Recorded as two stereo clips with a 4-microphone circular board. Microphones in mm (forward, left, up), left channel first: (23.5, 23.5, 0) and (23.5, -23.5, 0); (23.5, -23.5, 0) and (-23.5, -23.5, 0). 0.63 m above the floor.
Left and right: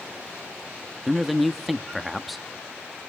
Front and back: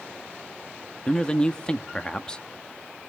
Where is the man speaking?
Straight ahead, 0.8 m.